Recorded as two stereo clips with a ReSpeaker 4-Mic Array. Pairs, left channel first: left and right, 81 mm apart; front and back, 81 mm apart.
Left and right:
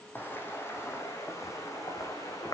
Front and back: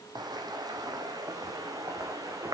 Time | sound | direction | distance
0.1 | footsteps | 155° left | 3 m